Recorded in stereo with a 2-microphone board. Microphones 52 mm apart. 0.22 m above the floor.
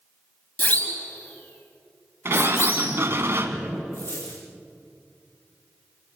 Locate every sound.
0.6 s a siren: 35° left (ahead or behind), 3.5 m; by 3.0 s 55° left (ahead or behind), 4 m
2.2 s a sliding door: 55° right (ahead or behind), 1.4 m
3.9 s a dropped coin: 70° left (ahead or behind), 5 m